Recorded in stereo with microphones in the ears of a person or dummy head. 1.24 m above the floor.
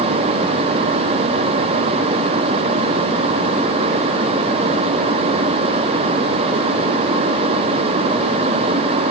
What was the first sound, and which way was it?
Only background noise.